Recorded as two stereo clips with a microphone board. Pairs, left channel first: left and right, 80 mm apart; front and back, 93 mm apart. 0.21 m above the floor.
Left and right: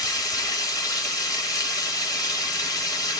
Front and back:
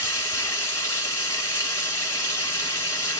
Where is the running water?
55° left, 1.6 m.